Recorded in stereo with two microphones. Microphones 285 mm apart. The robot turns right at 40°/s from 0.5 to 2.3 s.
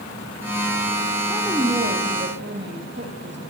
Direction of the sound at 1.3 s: Straight behind.